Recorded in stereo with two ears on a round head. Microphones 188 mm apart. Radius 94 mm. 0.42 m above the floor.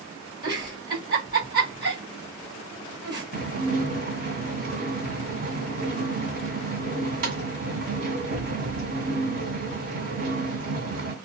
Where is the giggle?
20° right (ahead or behind), 1.5 m.